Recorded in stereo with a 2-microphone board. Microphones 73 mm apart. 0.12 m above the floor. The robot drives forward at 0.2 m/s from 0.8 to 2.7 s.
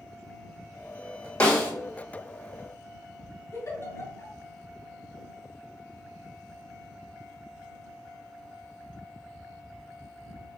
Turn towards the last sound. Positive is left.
turn(degrees=40)  # may be behind; listen again after turning